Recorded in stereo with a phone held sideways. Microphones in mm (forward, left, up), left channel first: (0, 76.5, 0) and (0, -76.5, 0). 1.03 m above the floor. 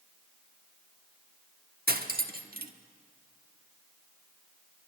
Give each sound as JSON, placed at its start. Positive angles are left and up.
{"t": 1.9, "sound": "cutlery clinking", "side_deg": -75, "distance_m": 1.2}